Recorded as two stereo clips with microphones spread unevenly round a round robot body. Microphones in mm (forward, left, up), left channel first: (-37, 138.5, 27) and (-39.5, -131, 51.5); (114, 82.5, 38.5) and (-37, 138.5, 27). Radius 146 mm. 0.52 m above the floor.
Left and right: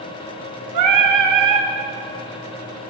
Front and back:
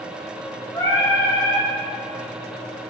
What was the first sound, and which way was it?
Singing, 95° right.